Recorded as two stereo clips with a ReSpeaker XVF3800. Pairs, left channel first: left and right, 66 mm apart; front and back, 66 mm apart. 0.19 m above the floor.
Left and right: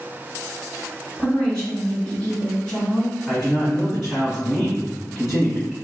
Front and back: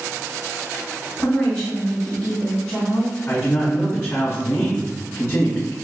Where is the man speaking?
15° left, 1.1 m.